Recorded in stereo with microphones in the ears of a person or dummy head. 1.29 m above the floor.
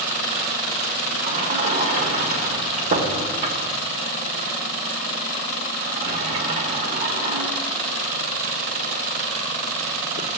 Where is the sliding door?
40° right (ahead or behind), 1.3 m.